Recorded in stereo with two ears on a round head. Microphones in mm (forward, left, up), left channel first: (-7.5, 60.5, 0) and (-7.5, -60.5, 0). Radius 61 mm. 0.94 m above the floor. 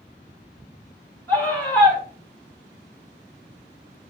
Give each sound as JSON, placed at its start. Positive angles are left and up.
{"t": 1.3, "sound": "a scream", "side_deg": 15, "distance_m": 3.0}